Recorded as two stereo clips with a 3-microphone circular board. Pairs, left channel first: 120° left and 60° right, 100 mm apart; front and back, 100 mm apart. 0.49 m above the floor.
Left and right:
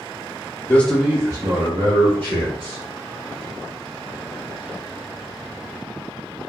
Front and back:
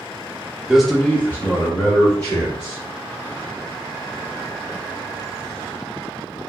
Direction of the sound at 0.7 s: 105° left.